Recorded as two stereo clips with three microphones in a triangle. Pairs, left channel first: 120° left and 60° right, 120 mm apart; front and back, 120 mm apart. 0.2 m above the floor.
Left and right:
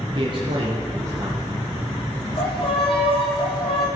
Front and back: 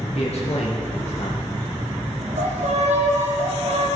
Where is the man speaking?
20° right, 3.5 m; by 1.7 s 15° left, 4 m.